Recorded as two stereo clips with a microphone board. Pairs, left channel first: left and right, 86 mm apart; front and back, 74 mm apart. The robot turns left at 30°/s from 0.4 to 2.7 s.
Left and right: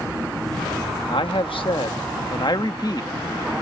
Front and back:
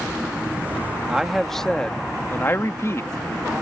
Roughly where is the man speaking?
Left.